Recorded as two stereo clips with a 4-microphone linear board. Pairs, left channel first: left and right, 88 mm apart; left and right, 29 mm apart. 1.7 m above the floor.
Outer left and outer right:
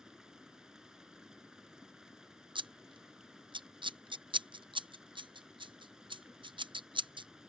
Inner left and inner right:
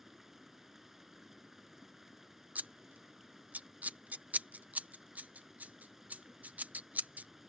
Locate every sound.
0.0 s running water: 10° right (ahead or behind)
2.5 s scissors: 65° right (ahead or behind)